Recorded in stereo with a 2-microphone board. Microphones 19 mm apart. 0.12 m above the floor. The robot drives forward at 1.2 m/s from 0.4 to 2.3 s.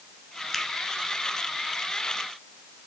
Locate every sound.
0.5 s a finger snap: 15° left (ahead or behind), 1.2 m